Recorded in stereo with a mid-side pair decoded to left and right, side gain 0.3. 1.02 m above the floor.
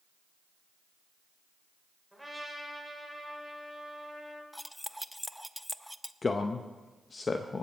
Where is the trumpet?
Straight ahead, 3 m.